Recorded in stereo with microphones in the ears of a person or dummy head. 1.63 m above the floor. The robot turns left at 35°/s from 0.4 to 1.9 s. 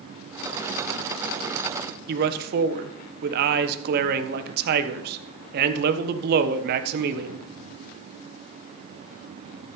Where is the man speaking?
55° right (ahead or behind), 1.2 m.